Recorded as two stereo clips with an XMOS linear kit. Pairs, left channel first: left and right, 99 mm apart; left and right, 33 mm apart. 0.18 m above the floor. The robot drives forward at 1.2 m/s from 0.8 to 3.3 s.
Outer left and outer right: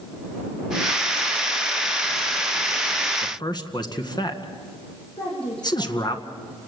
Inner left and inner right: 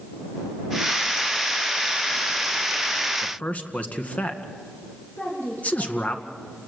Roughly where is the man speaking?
Left.